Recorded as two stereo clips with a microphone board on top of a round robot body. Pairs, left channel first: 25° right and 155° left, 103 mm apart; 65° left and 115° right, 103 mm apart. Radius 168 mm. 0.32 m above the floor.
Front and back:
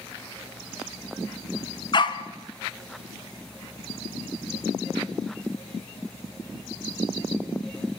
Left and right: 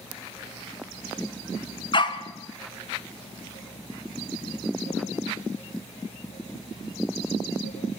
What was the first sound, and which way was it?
A dog barking, 25° left.